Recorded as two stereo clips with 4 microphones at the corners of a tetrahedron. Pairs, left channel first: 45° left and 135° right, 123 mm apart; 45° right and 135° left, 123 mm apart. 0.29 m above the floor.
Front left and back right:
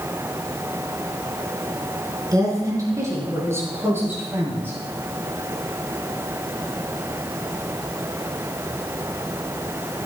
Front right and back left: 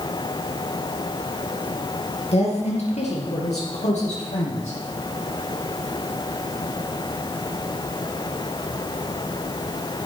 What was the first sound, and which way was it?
A woman speaking, 75° right.